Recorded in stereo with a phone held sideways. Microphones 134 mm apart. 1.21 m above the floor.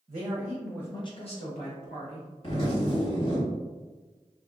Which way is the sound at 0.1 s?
50° right (ahead or behind).